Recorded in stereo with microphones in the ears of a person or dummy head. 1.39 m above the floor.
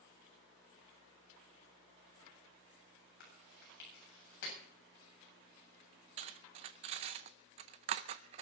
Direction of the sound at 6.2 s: 25° right (ahead or behind).